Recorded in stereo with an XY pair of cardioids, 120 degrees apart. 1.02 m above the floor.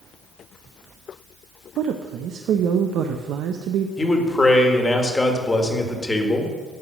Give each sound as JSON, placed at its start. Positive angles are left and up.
{"t": 1.8, "sound": "a woman speaking", "azimuth_deg": -65, "distance_m": 0.6}
{"t": 4.0, "sound": "a man speaking", "azimuth_deg": 15, "distance_m": 1.6}